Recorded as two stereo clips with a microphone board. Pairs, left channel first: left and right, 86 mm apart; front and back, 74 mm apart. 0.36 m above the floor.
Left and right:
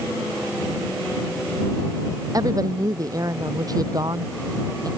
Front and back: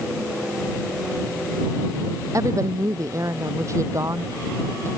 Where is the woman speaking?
135° right.